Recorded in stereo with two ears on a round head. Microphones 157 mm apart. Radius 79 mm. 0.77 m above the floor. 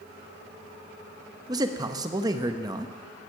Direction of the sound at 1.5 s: 20° right (ahead or behind).